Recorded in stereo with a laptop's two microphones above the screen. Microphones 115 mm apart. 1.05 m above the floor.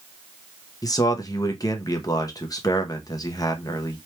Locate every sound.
0.8 s a man speaking: 30° left (ahead or behind), 0.7 m